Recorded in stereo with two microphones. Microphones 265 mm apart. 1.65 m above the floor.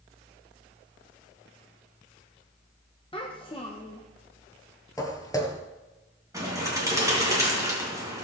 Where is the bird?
10° right (ahead or behind), 4 m.